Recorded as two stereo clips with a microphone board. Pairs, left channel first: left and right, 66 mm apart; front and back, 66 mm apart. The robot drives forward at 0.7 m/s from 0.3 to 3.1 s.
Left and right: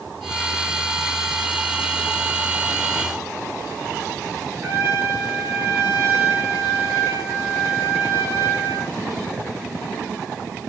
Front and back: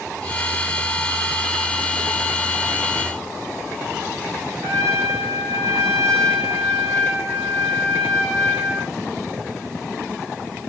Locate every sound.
4.6 s a trumpet: 145° right, 7.5 m